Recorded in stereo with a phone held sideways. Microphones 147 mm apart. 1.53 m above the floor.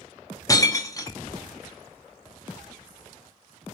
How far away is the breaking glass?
About 0.6 m.